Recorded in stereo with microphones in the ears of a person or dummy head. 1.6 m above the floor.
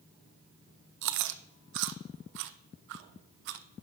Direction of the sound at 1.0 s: 60° right (ahead or behind).